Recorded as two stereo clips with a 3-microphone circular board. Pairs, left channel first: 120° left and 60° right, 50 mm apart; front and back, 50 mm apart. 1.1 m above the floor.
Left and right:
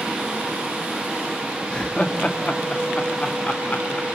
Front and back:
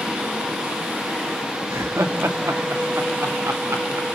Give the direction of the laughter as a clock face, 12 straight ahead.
6 o'clock.